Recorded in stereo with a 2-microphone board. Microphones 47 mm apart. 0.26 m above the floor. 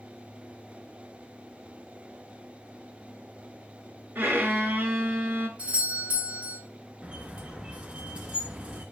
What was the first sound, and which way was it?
A violin, 45° right (ahead or behind).